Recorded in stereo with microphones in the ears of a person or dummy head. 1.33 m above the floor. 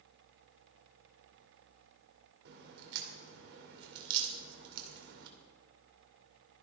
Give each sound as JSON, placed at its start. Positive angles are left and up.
{"t": 2.5, "sound": "a crack", "side_deg": -65, "distance_m": 2.5}